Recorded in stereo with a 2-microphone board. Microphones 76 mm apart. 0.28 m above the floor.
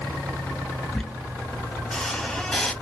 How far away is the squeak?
About 0.6 m.